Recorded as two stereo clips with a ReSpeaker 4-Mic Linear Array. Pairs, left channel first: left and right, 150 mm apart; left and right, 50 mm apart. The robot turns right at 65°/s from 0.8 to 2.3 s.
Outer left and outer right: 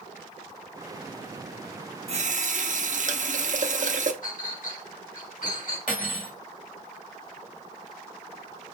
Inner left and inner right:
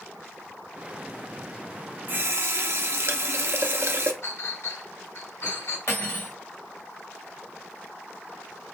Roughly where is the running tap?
Right.